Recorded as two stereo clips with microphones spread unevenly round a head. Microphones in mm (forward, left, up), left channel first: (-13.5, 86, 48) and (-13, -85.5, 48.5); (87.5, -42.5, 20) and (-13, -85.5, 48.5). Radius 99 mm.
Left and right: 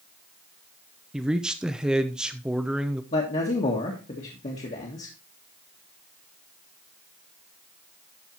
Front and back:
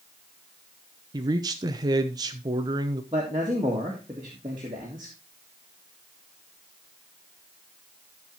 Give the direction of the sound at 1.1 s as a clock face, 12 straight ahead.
6 o'clock.